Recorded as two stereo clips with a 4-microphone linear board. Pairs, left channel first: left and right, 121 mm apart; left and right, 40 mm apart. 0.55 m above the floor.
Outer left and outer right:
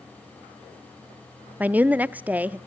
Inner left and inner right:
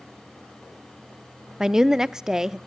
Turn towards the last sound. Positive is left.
turn(degrees=-15)  # may be behind; listen again after turning